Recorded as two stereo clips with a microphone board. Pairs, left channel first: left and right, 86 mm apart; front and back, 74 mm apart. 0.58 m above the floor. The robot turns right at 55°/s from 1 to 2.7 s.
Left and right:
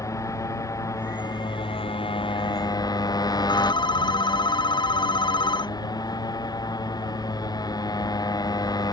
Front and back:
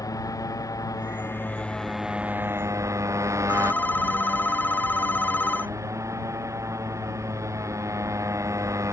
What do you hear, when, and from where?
0.0 s a motorcycle: 40° left; by 8.9 s 130° left
3.5 s a phone ringing: 65° left